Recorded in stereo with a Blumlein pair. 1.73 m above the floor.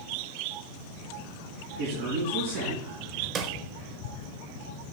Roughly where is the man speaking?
Ahead right.